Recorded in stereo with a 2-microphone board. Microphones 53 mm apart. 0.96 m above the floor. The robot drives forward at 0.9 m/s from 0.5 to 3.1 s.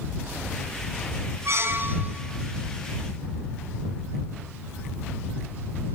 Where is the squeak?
60° right (ahead or behind), 0.7 m; by 2.2 s 30° right (ahead or behind), 1.1 m.